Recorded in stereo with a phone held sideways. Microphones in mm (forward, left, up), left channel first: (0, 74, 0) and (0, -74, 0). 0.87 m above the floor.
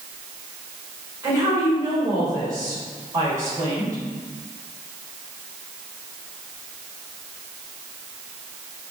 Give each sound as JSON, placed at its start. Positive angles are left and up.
{"t": 1.2, "sound": "a woman speaking", "side_deg": -25, "distance_m": 3.0}